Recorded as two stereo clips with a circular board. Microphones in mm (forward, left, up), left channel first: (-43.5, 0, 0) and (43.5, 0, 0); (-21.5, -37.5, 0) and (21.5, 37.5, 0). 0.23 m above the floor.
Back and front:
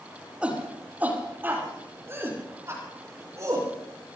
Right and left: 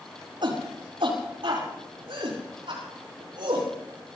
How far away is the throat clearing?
I don't hear throat clearing.